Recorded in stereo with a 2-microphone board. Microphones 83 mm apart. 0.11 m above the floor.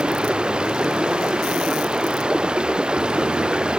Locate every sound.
0.0 s running water: 10° right (ahead or behind)